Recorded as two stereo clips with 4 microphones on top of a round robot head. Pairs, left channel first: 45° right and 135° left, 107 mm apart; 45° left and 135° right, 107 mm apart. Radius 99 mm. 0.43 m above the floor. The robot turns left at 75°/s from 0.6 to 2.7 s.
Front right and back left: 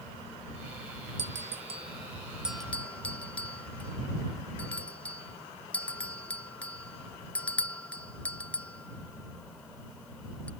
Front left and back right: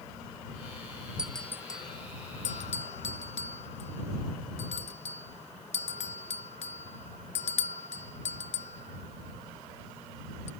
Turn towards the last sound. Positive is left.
turn(degrees=30)